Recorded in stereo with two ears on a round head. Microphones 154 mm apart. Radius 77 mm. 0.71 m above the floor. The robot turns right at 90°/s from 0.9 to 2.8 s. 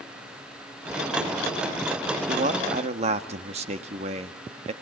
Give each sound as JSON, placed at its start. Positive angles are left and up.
{"t": 2.3, "sound": "a man speaking", "azimuth_deg": -110, "distance_m": 1.4}